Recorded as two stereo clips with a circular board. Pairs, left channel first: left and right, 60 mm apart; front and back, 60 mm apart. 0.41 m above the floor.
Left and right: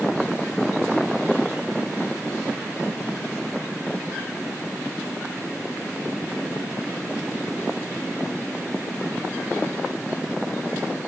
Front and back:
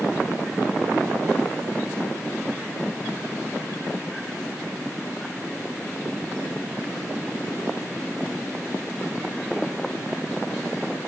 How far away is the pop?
I don't hear a pop.